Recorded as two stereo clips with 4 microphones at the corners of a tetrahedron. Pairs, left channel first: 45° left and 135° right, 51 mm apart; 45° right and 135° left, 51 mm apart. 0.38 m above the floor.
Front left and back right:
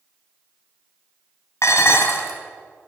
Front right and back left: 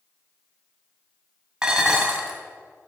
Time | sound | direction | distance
1.6 | dishes clattering | 60° left | 1.8 m